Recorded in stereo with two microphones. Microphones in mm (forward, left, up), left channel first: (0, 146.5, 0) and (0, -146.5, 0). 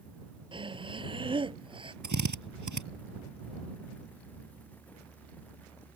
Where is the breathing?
15° right (ahead or behind).